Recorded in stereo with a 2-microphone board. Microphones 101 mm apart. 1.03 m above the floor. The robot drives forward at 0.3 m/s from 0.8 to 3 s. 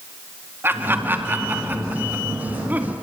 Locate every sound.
0.6 s laughter: 20° right (ahead or behind), 2 m; by 2.9 s 15° right (ahead or behind), 2.5 m